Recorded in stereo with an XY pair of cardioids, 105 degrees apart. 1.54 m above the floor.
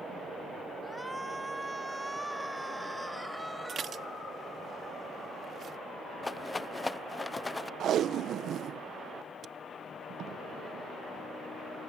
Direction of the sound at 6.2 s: 20° left.